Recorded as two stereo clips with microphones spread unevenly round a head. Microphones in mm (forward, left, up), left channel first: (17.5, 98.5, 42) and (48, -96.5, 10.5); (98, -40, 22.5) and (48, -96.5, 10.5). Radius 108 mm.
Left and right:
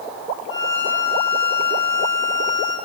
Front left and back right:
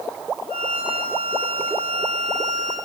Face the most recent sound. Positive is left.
turn(degrees=105)